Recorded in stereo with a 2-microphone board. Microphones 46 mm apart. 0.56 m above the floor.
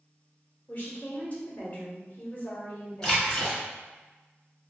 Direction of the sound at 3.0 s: 15° left (ahead or behind).